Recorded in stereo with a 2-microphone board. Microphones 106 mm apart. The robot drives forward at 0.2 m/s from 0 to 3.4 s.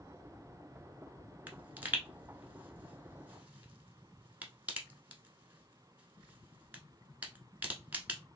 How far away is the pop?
About 0.9 m.